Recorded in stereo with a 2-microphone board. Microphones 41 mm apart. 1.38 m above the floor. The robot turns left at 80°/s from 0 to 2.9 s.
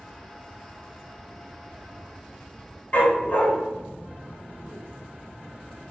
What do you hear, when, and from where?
2.9 s a dog barking: 40° left (ahead or behind), 1.1 m